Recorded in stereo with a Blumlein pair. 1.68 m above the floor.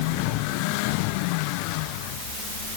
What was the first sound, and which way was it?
Only background noise.